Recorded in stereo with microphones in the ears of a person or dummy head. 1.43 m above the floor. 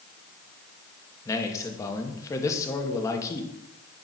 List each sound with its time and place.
1.2 s a man speaking: 20° left (ahead or behind), 1.5 m